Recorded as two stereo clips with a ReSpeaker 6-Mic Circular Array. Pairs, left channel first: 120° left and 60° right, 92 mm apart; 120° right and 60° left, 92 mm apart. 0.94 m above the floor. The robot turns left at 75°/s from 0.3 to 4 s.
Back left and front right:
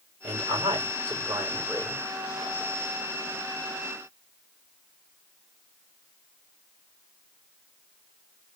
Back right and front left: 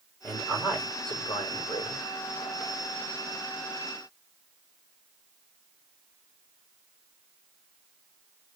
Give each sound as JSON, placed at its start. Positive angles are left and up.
{"t": 0.2, "sound": "a man speaking", "azimuth_deg": -55, "distance_m": 3.5}